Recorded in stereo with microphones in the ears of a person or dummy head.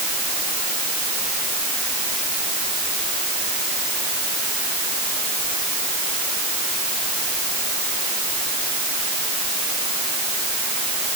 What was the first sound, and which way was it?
Only background noise.